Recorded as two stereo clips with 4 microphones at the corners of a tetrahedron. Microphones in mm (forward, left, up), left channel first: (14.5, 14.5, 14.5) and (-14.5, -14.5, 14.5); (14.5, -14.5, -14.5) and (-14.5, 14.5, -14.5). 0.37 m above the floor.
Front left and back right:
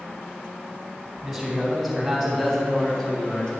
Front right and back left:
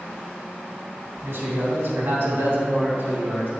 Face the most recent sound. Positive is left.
turn(degrees=115)